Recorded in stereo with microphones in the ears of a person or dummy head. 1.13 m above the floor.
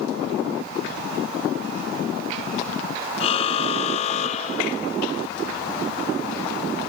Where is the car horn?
35° left (ahead or behind); by 4.9 s 40° left (ahead or behind).